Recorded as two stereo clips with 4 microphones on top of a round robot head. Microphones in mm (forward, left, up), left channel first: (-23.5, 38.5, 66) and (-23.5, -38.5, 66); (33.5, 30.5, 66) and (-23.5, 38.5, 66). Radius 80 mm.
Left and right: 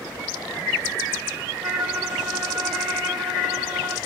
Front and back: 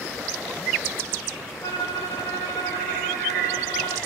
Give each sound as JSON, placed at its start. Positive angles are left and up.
{"t": 1.6, "sound": "a violin", "azimuth_deg": -40, "distance_m": 0.6}